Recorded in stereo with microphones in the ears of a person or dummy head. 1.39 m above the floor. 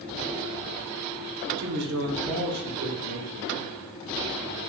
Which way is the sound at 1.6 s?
60° right (ahead or behind).